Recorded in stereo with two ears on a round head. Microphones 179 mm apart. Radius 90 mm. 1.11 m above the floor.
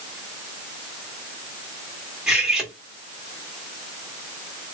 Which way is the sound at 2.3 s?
5° right (ahead or behind).